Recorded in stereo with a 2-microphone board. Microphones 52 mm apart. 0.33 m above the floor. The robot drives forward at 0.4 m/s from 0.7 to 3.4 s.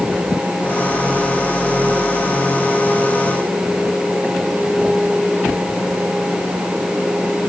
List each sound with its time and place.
Only background noise.